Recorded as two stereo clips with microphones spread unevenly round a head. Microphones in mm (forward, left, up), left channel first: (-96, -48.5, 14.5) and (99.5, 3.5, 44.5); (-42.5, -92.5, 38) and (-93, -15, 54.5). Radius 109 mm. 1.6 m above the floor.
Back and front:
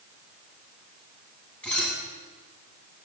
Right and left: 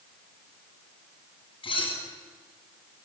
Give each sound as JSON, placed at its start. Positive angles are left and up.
{"t": 1.6, "sound": "dishes clattering", "azimuth_deg": -80, "distance_m": 9.0}